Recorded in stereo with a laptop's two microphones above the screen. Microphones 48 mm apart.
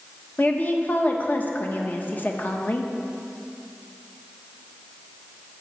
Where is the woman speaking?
40° left (ahead or behind), 0.9 m.